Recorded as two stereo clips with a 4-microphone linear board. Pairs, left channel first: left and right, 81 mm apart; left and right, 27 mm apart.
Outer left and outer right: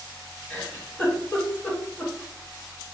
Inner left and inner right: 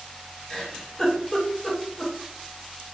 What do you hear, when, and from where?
0.5 s a giggle: 15° left (ahead or behind), 1.5 m